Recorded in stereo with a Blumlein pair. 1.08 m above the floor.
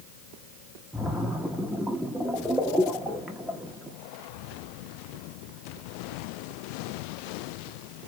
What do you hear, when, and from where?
0.9 s a splash: straight ahead, 0.7 m